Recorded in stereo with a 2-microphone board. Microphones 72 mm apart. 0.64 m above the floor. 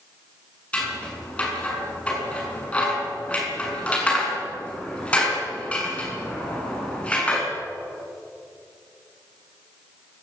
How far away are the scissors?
About 7 m.